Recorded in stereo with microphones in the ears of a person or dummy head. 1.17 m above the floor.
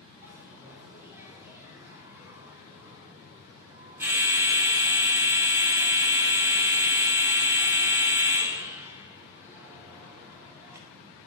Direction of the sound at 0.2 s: 15° right (ahead or behind).